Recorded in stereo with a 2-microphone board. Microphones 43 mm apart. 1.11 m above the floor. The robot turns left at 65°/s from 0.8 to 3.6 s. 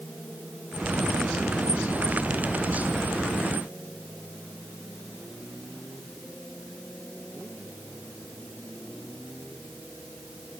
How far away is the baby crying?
No baby crying in this recording.